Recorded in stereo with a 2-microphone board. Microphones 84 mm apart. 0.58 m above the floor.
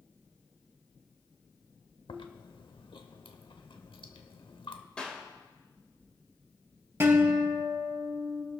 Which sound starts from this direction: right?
A guitar, at 7.0 s.